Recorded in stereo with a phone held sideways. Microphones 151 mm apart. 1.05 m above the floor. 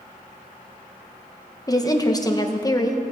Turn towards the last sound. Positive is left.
turn(degrees=25)  # may be behind; listen again after turning